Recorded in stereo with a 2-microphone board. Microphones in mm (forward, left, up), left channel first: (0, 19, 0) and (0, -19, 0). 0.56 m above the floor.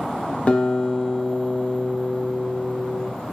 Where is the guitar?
30° left (ahead or behind), 0.9 m.